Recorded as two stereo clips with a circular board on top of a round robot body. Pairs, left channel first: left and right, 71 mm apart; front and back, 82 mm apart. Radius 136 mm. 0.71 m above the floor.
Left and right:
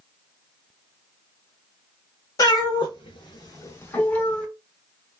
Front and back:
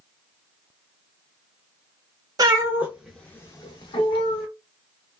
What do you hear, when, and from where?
2.4 s a cat meowing: 130° left, 0.7 m; by 4.5 s 15° left, 0.9 m